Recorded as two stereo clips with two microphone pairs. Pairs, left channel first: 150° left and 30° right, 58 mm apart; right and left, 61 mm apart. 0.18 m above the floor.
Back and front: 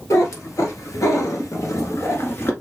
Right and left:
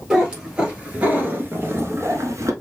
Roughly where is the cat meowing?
Behind.